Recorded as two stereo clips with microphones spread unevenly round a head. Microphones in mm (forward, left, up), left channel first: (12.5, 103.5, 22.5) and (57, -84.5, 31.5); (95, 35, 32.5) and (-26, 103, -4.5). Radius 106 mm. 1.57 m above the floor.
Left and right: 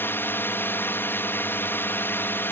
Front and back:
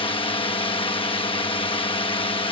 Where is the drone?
25° left.